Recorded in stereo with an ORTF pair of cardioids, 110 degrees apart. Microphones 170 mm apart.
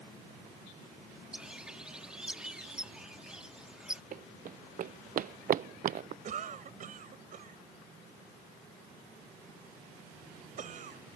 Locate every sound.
1.3 s a bird: 5° right
4.1 s running footsteps: 55° right
6.2 s a cough: 50° right